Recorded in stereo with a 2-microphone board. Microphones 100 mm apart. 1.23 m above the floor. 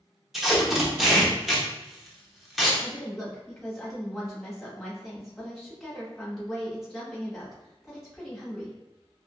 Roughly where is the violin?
No violin in this recording.